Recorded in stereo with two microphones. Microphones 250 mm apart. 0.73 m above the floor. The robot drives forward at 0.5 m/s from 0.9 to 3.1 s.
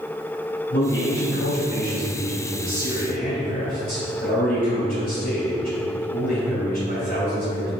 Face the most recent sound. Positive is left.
turn(degrees=40)  # may be behind; listen again after turning